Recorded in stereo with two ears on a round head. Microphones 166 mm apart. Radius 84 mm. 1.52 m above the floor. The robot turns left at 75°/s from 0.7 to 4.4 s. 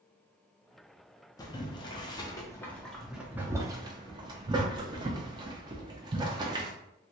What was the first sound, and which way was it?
Boiling, 20° left (ahead or behind).